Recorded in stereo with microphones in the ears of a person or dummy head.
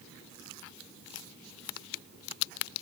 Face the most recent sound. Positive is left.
No sound to turn to.